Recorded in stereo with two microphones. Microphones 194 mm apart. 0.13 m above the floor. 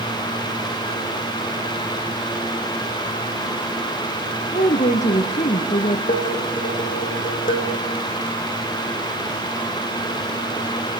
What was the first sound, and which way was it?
A woman speaking, 40° left (ahead or behind).